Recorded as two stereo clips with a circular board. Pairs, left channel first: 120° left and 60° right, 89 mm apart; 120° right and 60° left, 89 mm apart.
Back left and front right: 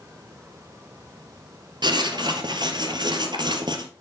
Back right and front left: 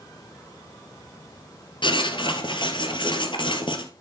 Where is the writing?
95° right, 2.0 m.